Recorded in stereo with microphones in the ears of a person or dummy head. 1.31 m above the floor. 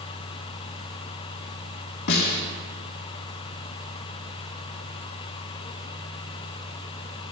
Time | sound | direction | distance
2.1 | a snare drum | 55° left (ahead or behind) | 2.5 m